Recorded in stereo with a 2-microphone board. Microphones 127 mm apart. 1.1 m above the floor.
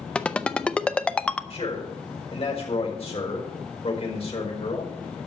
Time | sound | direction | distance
0.1 | a ringtone | 10° left (ahead or behind) | 0.6 m
1.5 | a man speaking | 50° left (ahead or behind) | 4.5 m